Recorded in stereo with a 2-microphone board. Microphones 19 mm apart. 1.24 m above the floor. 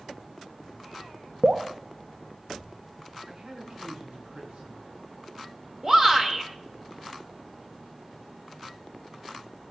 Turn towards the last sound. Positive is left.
turn(degrees=-30)  # may be behind; listen again after turning